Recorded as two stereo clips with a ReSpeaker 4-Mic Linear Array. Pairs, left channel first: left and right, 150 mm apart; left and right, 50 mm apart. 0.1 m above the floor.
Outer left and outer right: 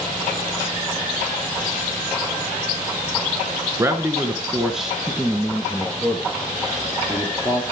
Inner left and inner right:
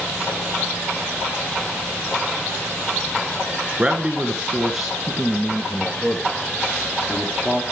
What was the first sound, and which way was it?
A man speaking, 20° right (ahead or behind).